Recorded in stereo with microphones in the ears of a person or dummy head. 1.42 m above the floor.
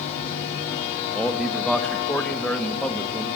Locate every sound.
1.1 s a man speaking: 5° left (ahead or behind), 1.5 m